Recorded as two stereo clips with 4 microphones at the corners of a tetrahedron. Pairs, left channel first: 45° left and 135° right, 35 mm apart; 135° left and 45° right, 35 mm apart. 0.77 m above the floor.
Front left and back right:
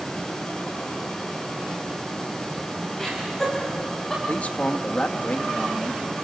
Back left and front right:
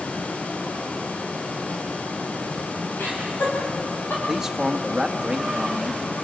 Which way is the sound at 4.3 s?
25° left.